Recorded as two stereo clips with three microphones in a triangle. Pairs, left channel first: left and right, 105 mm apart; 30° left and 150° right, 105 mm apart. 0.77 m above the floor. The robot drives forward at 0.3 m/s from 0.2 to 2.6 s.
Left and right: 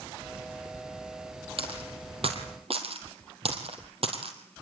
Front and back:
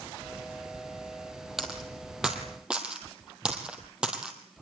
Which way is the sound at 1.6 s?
65° right.